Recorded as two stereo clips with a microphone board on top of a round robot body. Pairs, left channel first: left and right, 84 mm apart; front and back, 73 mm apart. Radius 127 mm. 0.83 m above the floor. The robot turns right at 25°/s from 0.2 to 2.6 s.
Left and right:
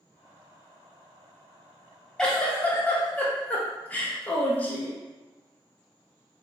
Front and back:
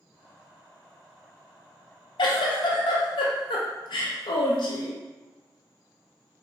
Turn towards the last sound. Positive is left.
turn(degrees=20)